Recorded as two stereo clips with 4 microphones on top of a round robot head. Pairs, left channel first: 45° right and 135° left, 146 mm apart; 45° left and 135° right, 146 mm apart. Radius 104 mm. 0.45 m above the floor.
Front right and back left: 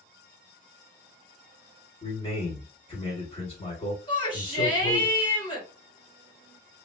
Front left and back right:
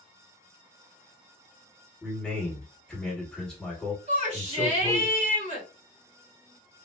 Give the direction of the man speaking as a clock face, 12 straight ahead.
1 o'clock.